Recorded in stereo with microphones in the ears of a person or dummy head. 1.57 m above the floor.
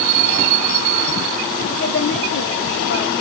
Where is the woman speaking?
40° left (ahead or behind), 1.7 m; by 3.1 s 65° left (ahead or behind), 1.8 m.